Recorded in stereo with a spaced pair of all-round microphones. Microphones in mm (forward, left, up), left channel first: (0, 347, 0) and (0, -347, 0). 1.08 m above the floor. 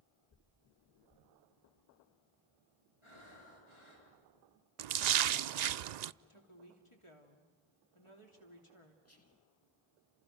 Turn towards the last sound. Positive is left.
turn(degrees=25)  # may be behind; listen again after turning